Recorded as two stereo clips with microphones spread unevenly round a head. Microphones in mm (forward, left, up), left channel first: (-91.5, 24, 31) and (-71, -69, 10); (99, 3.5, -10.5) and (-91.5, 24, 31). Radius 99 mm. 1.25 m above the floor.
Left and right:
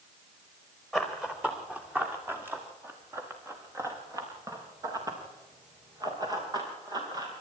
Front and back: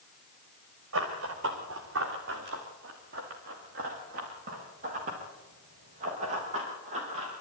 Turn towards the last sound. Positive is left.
turn(degrees=-125)